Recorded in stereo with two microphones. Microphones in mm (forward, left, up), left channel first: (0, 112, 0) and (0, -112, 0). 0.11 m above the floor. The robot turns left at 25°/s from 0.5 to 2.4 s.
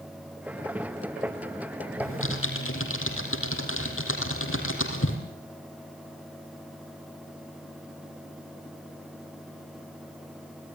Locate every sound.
2.0 s typing on a keyboard: 65° left (ahead or behind), 4 m; by 5.2 s 70° left (ahead or behind), 4 m